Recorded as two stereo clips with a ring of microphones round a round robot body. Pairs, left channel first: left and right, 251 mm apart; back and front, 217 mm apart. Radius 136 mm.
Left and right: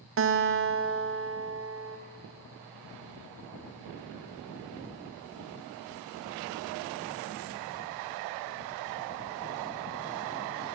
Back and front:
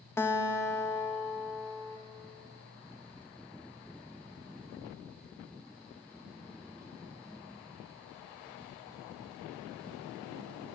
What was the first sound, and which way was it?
A guitar, 105° right.